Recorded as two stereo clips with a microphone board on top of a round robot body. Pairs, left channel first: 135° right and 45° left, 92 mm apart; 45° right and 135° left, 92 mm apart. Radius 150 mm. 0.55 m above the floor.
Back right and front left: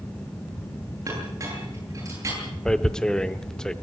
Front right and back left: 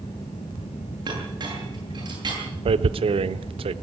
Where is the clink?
100° left, 10 m.